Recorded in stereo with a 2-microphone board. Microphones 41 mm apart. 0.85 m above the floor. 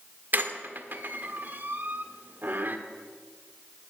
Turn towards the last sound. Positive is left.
turn(degrees=-50)  # may be behind; listen again after turning